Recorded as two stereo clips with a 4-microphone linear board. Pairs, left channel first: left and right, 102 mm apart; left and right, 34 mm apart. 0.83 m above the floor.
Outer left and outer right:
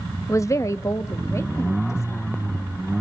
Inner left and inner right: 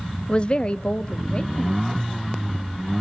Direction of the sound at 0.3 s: 30° left (ahead or behind).